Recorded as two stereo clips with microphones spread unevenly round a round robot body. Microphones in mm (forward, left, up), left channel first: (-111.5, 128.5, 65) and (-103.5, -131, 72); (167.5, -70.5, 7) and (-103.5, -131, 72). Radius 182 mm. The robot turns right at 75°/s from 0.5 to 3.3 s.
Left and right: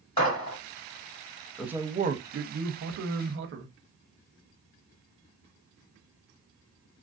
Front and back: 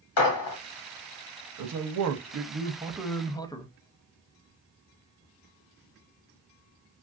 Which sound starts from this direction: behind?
A man speaking, at 1.6 s.